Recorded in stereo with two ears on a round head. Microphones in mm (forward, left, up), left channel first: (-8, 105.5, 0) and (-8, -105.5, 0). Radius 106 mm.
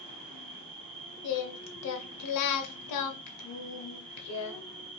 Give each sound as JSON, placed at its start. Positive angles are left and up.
{"t": 0.0, "sound": "an insect", "side_deg": 5, "distance_m": 2.5}
{"t": 1.2, "sound": "singing", "side_deg": 75, "distance_m": 0.7}